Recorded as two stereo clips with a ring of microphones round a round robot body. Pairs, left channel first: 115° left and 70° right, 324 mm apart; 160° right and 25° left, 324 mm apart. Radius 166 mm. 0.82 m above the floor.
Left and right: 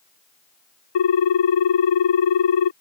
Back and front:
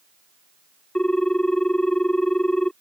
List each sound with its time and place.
0.9 s a ringtone: 115° left